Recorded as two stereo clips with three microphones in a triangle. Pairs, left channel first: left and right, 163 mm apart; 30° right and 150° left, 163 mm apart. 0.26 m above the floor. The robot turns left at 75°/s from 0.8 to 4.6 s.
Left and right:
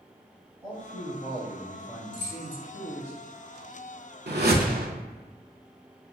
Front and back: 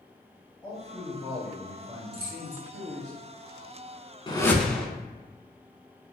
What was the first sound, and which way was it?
A man speaking, 60° right.